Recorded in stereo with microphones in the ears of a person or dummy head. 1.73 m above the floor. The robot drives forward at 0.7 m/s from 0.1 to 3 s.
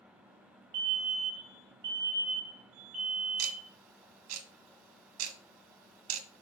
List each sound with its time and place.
0.7 s a fire alarm: 55° right (ahead or behind), 1.3 m; by 3.7 s 35° right (ahead or behind), 1.8 m
3.4 s ticking: 85° right, 1.6 m